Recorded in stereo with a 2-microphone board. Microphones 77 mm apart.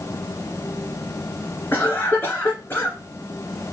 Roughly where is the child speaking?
I don't hear a child speaking.